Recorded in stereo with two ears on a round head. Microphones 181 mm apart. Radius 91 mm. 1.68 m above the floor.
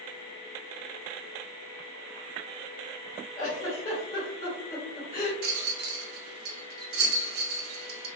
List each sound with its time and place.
3.4 s a giggle: 20° left (ahead or behind), 1.6 m
5.4 s a rattle: 50° right (ahead or behind), 0.7 m